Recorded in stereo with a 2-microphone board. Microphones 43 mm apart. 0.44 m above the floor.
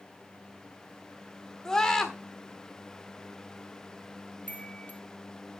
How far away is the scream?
About 1.4 m.